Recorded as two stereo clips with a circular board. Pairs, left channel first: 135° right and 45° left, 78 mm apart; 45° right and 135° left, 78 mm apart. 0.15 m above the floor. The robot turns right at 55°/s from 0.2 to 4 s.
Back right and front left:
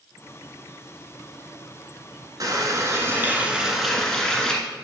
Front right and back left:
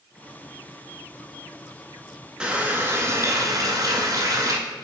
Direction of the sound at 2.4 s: 60° left.